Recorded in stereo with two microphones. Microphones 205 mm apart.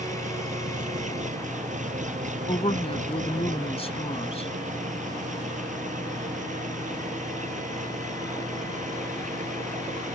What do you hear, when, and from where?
0.0 s an engine running: 35° right (ahead or behind)
2.5 s a woman speaking: 30° left (ahead or behind)